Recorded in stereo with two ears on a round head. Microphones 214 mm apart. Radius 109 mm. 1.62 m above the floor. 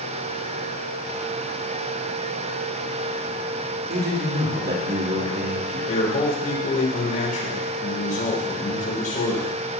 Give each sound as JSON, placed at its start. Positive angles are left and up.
{"t": 3.9, "sound": "a man speaking", "side_deg": -45, "distance_m": 3.0}
{"t": 5.9, "sound": "a man speaking", "side_deg": 35, "distance_m": 6.0}